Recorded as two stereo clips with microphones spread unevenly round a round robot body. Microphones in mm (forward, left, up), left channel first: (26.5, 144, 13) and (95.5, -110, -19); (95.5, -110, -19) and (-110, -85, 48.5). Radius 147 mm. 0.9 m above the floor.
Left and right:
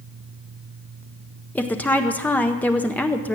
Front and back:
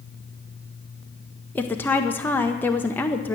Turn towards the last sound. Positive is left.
turn(degrees=15)